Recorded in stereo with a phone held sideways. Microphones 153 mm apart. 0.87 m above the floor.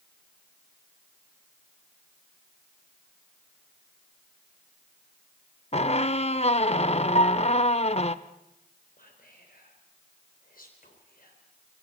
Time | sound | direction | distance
5.7 | a squeak | 45° left (ahead or behind) | 0.7 m
7.2 | a piano | 50° left (ahead or behind) | 1.1 m
9.0 | whispering | 70° left (ahead or behind) | 3.5 m